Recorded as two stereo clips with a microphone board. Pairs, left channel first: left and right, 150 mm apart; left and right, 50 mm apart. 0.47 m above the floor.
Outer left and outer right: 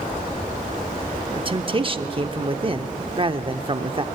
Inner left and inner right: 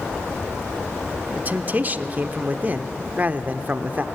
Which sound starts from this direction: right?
A man speaking, at 1.4 s.